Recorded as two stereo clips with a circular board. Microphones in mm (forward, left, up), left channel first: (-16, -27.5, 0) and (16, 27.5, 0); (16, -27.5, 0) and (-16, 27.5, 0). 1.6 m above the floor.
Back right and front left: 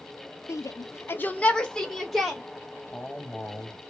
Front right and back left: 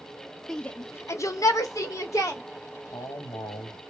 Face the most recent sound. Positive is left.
turn(degrees=-45)